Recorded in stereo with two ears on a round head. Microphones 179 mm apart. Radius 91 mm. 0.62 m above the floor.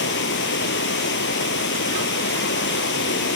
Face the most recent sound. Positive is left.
turn(degrees=65)  # may be behind; listen again after turning